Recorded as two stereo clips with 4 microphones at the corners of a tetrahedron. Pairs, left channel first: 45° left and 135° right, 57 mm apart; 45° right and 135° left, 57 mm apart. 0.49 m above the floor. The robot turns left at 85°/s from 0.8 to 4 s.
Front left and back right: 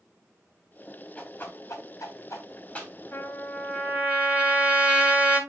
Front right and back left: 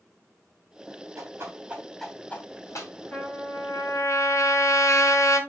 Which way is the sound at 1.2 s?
115° left.